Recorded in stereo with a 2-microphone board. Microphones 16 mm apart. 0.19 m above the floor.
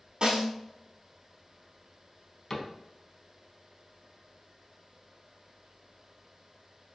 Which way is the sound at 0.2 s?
50° right (ahead or behind).